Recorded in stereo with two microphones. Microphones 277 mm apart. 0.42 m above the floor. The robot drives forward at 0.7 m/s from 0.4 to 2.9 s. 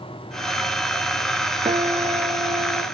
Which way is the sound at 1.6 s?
20° right (ahead or behind).